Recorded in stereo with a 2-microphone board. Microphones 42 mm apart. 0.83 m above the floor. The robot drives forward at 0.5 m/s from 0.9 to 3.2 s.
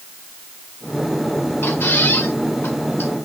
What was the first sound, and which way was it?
A squeak, 80° left.